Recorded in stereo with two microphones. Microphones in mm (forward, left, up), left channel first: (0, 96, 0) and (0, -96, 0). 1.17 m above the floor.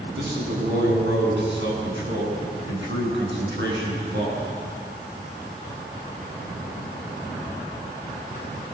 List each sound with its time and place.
0.2 s a man speaking: 75° right (ahead or behind), 9.5 m; by 4.4 s 70° right (ahead or behind), 12.5 m